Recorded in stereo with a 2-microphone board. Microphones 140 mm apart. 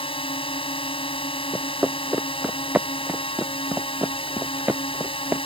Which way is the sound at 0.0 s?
45° left (ahead or behind).